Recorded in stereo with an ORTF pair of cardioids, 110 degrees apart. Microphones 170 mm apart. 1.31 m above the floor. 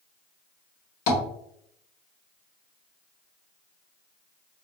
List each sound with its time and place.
1.1 s tapping: 65° left, 1.4 m